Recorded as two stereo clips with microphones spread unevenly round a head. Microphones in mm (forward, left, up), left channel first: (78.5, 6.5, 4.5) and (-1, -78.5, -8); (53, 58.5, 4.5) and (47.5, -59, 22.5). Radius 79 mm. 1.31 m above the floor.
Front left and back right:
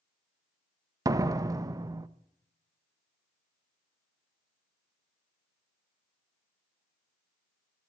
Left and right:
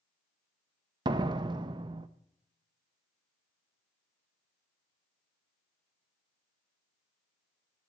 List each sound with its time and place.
1.1 s a door slam: 75° right, 0.6 m